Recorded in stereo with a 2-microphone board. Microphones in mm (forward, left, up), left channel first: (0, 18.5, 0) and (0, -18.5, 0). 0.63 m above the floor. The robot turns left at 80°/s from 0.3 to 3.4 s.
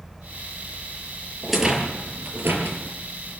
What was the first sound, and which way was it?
A rattle, 5° left (ahead or behind).